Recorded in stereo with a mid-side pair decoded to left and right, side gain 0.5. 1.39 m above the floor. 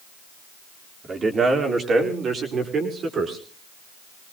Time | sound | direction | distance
1.0 | a man speaking | 35° right | 4.5 m